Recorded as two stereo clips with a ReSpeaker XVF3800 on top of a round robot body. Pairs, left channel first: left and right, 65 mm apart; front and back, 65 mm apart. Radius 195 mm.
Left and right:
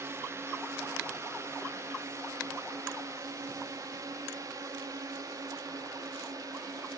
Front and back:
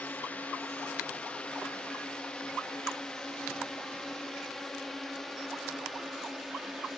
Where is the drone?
60° right; by 7.0 s 90° right.